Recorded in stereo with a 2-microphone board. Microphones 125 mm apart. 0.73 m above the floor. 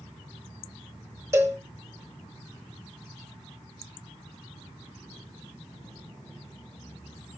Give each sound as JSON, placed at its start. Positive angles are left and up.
{"t": 1.3, "sound": "a cowbell", "side_deg": -25, "distance_m": 1.2}